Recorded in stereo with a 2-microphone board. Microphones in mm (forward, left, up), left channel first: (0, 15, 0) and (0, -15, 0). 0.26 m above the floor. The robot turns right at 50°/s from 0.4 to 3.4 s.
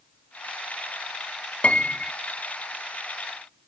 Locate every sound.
1.6 s a piano: 50° left (ahead or behind), 0.5 m; by 2.1 s 70° left (ahead or behind), 0.5 m